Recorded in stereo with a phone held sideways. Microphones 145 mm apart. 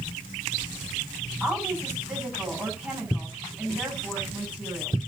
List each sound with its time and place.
1.4 s a woman speaking: 10° right (ahead or behind), 7.5 m